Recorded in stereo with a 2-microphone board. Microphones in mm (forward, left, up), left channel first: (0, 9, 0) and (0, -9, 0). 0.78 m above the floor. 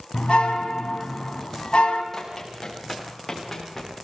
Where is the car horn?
70° left (ahead or behind), 3.5 m.